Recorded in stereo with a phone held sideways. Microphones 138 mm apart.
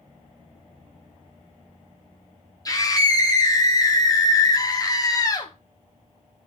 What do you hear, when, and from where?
2.6 s a scream: 25° left (ahead or behind), 0.8 m